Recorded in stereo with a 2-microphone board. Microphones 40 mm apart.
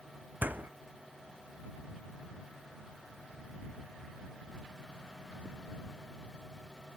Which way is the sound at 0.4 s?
50° right (ahead or behind).